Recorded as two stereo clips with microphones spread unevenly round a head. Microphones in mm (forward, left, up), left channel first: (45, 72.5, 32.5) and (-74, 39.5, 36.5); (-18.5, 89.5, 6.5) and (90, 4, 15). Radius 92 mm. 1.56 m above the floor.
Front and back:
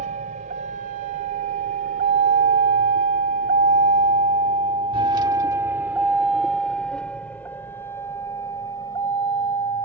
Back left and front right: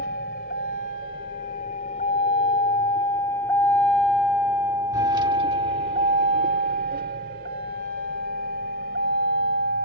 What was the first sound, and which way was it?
A vehicle, straight behind.